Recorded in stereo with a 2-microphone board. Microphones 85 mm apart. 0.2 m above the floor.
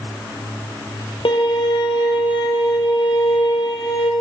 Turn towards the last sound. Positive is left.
turn(degrees=75)  # may be behind; listen again after turning